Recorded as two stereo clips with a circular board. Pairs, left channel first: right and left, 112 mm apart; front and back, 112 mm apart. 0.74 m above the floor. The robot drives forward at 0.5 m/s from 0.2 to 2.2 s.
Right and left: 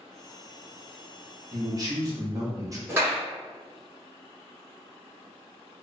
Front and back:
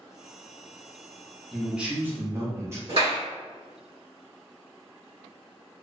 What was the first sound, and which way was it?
A man speaking, 85° left.